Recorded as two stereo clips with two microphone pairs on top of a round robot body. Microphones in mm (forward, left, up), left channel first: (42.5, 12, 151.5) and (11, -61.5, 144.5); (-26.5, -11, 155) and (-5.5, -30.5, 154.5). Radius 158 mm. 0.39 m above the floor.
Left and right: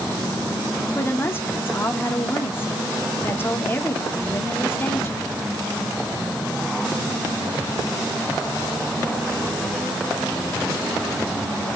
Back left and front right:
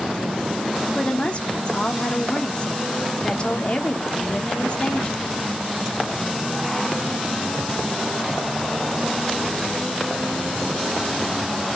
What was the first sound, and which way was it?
A woman speaking, 115° left.